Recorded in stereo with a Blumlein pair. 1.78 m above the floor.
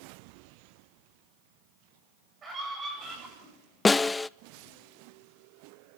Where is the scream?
20° right, 9.5 m.